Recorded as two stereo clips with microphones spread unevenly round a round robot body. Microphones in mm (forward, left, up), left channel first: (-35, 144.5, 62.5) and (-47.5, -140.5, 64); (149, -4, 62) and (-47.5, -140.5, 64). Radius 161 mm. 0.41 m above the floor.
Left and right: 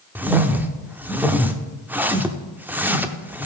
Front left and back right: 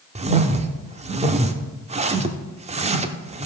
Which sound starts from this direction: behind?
A whoosh, at 0.1 s.